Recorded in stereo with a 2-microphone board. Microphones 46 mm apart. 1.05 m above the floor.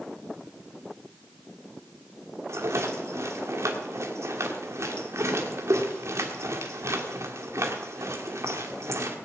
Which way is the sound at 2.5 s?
90° right.